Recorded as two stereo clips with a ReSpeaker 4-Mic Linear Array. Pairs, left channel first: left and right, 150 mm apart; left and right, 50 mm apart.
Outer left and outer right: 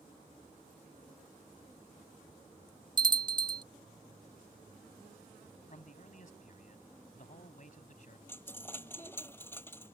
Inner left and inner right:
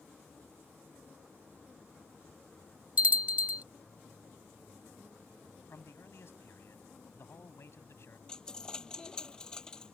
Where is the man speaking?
60° left (ahead or behind).